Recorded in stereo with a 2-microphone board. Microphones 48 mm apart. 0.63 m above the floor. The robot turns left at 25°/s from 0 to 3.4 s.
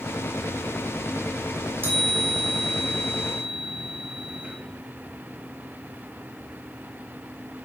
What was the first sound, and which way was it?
A chime, 85° right.